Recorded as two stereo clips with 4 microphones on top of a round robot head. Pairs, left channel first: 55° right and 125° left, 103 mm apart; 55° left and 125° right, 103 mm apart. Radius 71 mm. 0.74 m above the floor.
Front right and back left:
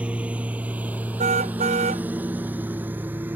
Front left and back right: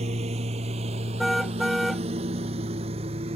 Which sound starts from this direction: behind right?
A lawn mower, at 0.0 s.